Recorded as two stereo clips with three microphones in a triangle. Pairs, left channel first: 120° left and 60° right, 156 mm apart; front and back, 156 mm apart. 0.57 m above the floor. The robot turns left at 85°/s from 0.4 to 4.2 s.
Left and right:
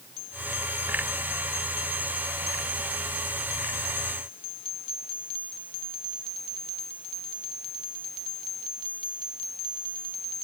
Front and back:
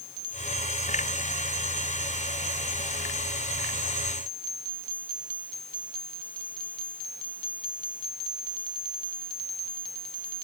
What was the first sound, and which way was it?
Only background noise.